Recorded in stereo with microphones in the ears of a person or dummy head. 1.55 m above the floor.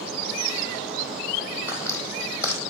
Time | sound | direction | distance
1.7 | footsteps | 15° left (ahead or behind) | 3.5 m